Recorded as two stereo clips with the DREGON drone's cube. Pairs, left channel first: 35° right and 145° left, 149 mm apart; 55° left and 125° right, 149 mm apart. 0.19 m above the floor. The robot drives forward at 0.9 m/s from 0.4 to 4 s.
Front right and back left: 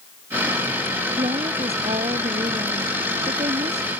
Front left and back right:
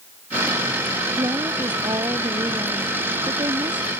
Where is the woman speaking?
Straight behind.